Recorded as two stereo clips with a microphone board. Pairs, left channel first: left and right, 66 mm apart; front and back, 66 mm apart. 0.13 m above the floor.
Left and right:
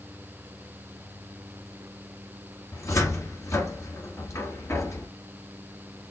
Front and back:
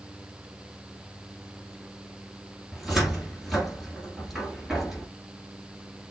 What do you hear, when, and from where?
2.7 s a cupboard door: 95° left, 1.9 m